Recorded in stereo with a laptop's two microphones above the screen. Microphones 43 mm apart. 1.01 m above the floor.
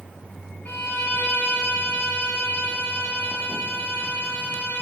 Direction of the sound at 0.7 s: 45° left (ahead or behind).